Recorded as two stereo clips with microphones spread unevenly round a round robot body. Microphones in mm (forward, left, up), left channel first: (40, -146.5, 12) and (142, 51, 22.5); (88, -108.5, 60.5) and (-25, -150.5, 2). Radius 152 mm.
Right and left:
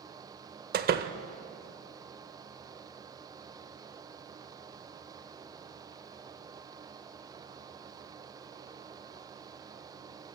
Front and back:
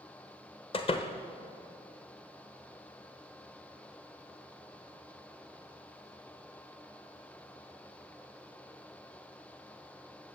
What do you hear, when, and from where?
0.7 s a door slam: 85° left, 0.9 m